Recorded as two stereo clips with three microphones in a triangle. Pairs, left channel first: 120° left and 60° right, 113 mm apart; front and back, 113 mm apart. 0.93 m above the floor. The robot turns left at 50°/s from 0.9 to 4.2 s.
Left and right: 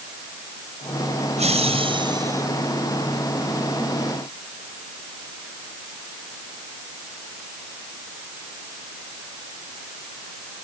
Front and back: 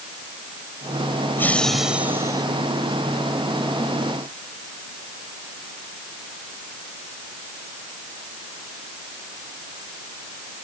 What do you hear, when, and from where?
1.4 s laughter: 70° right; by 2.5 s 125° right